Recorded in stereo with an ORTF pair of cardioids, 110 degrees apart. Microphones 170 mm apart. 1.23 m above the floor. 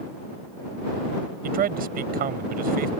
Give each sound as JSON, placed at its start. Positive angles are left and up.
{"t": 1.4, "sound": "a man speaking", "azimuth_deg": -60}